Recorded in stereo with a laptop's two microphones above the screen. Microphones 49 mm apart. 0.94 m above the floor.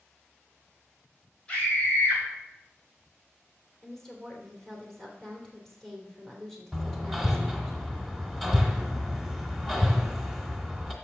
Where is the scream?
20° left (ahead or behind), 4 m.